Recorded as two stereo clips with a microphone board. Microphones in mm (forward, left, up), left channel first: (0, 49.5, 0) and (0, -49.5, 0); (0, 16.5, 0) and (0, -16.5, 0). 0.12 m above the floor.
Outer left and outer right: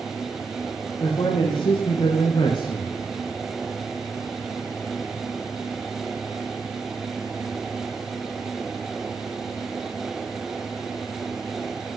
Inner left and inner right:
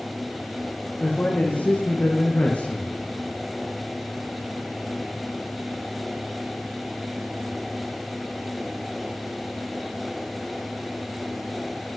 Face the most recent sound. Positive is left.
turn(degrees=50)  # may be behind; listen again after turning